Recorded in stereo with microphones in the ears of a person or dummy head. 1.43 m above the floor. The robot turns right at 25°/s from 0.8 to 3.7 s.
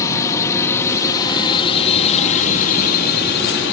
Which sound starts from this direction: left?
A drone, at 0.0 s.